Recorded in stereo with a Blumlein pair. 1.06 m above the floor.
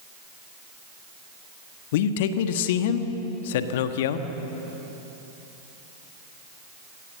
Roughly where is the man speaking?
Ahead left.